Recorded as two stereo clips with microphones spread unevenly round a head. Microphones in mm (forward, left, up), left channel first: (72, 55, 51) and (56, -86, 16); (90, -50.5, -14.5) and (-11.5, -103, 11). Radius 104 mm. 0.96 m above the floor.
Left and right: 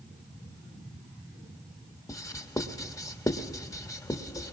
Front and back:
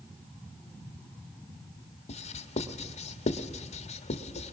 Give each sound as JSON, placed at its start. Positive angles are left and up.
{"t": 2.1, "sound": "writing", "azimuth_deg": 15, "distance_m": 1.4}